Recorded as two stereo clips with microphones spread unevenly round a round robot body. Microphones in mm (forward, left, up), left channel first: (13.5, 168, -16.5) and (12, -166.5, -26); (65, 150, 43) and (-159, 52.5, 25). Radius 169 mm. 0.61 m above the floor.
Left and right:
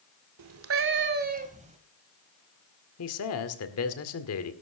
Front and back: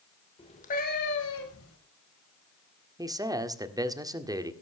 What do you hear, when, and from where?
0.4 s a cat meowing: 50° right, 1.4 m; by 1.8 s 20° right, 2 m
3.0 s a man speaking: 135° left, 1.9 m